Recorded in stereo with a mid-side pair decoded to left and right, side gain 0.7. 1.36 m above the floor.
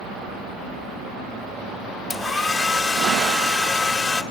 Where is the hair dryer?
10° left, 2 m.